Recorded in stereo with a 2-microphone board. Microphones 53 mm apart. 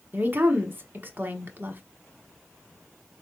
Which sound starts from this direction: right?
A woman speaking, at 0.1 s.